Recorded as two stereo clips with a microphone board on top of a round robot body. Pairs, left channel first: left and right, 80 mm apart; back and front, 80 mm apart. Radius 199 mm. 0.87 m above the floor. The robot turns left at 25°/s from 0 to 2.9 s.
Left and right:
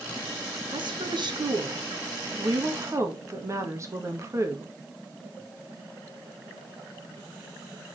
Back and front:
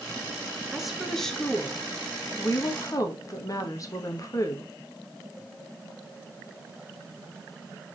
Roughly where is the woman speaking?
Right.